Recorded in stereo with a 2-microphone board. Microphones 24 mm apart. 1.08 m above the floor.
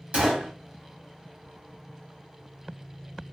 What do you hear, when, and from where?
0.1 s a gunshot: 60° right (ahead or behind), 1.4 m